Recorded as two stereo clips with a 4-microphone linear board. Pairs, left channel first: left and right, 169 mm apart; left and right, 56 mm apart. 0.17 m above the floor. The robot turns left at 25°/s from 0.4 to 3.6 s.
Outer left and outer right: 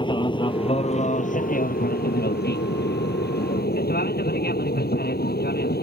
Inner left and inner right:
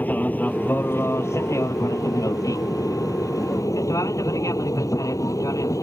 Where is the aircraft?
30° left (ahead or behind); by 5.8 s 65° left (ahead or behind).